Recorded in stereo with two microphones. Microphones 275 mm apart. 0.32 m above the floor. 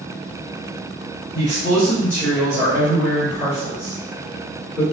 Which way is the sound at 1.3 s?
10° right (ahead or behind).